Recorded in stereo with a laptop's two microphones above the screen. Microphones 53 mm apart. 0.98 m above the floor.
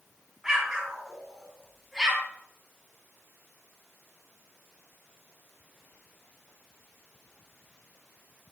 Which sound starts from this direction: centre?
An explosion, at 0.4 s.